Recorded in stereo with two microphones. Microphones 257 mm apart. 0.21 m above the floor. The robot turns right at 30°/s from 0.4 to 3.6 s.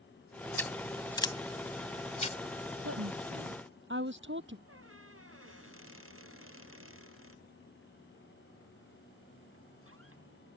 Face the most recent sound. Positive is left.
turn(degrees=-55)  # may be behind; listen again after turning